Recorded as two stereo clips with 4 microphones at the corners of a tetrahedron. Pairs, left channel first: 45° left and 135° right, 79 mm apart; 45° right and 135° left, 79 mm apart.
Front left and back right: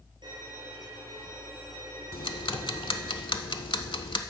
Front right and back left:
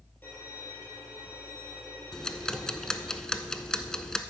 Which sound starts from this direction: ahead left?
Ticking, at 2.1 s.